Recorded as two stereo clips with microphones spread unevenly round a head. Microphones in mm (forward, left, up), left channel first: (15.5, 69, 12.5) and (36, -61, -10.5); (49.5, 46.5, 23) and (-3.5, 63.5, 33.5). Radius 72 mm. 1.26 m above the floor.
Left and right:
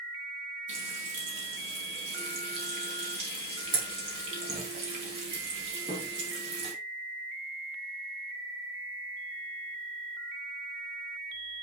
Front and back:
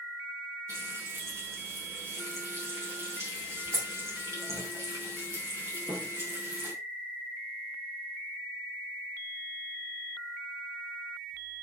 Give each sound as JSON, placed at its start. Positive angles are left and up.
{"t": 0.7, "sound": "frying", "azimuth_deg": -135, "distance_m": 4.0}